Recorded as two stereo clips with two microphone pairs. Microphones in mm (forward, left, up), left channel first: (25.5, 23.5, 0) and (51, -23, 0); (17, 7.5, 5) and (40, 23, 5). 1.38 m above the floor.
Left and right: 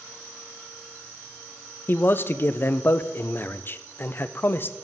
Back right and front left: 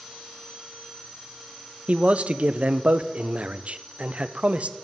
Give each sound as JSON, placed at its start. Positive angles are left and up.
{"t": 1.9, "sound": "a man speaking", "azimuth_deg": 65, "distance_m": 0.5}